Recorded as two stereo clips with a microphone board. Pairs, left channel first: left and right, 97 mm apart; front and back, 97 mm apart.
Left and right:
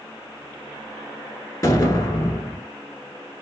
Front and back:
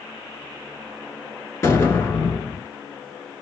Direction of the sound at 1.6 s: 50° left.